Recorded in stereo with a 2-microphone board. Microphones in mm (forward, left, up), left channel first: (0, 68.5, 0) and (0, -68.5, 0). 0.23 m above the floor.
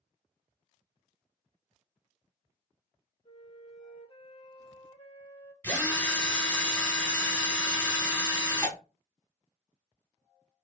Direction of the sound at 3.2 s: 40° left (ahead or behind).